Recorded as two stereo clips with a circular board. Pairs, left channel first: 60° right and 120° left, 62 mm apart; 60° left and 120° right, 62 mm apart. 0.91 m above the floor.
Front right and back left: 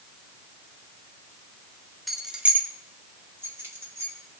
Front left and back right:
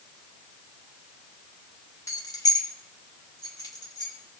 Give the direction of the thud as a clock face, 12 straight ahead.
No thud in this recording.